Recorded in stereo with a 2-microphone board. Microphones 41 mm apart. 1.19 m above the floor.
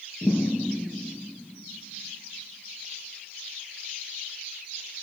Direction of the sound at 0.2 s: 60° left (ahead or behind).